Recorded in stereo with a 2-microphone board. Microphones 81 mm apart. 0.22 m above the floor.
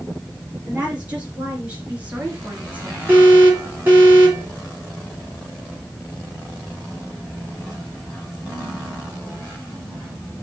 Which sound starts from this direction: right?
An alarm, at 3.1 s.